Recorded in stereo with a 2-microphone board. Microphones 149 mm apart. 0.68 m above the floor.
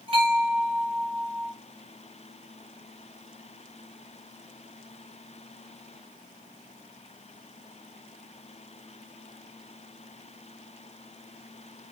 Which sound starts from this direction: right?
A bell, at 0.1 s.